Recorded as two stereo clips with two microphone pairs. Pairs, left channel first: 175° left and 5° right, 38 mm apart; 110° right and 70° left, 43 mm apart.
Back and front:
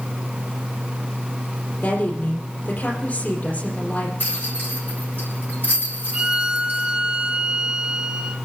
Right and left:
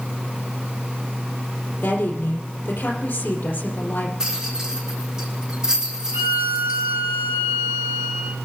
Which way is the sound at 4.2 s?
150° left.